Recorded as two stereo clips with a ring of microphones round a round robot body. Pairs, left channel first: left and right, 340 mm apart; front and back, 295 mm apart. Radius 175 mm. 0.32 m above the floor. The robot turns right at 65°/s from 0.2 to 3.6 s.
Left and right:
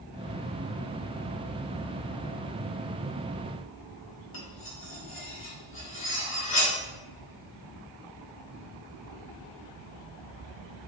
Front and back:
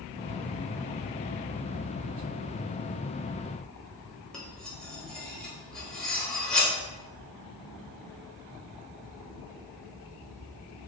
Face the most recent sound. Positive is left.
turn(degrees=85)